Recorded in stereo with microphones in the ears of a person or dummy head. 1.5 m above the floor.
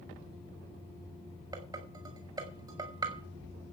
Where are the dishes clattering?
25° right (ahead or behind), 4 m.